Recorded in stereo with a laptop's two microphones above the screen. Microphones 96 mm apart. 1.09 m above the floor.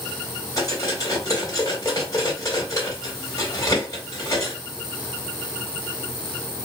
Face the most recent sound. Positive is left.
turn(degrees=35)  # may be behind; listen again after turning